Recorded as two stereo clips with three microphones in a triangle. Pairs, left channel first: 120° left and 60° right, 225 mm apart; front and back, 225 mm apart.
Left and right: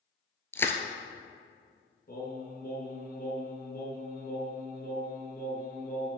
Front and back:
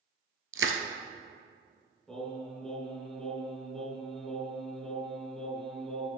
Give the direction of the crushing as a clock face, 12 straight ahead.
5 o'clock.